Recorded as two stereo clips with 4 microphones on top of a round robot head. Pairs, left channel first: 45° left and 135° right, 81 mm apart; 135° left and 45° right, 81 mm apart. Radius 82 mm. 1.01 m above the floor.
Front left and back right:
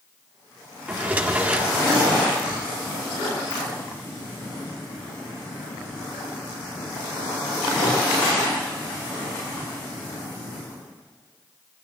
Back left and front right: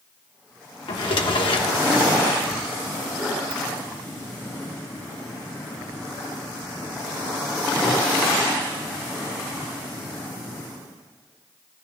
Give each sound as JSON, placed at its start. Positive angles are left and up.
{"t": 0.9, "sound": "a drawer", "azimuth_deg": 155, "distance_m": 1.5}
{"t": 3.5, "sound": "a ringtone", "azimuth_deg": 10, "distance_m": 2.0}